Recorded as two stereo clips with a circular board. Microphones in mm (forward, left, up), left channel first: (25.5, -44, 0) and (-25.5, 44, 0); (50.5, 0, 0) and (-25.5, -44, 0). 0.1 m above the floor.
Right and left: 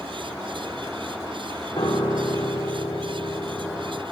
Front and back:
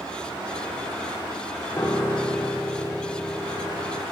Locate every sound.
1.8 s a piano: 40° right, 7 m